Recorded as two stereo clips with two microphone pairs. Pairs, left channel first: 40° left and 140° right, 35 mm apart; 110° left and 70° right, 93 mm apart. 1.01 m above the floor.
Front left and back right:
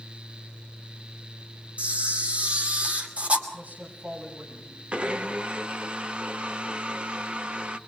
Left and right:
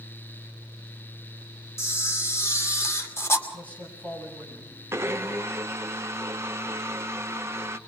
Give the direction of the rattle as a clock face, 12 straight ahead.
No rattle in this recording.